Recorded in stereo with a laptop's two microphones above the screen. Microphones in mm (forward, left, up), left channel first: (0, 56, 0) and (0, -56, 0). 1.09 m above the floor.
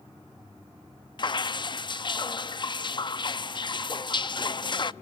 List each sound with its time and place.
1.2 s dripping: 45° left (ahead or behind), 0.6 m